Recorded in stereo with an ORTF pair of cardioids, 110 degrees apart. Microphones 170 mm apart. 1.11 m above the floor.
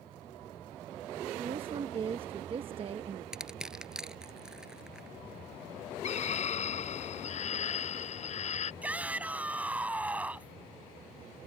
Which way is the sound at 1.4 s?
35° right.